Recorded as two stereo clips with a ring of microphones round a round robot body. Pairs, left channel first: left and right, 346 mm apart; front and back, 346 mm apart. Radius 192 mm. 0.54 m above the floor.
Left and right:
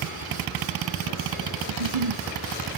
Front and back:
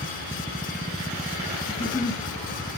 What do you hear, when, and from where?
1.7 s a giggle: 80° right, 1.5 m